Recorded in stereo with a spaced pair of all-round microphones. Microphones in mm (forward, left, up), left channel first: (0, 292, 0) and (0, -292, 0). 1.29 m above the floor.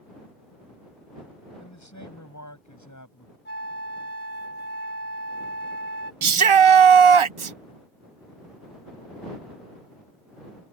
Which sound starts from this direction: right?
A shout, at 6.2 s.